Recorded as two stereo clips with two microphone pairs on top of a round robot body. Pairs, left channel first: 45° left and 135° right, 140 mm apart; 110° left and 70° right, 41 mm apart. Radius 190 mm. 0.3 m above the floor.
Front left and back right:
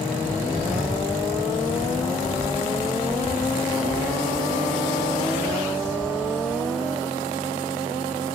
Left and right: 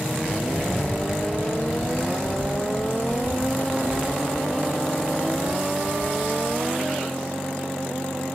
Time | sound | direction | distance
0.2 | footsteps | 175° left | 1.1 m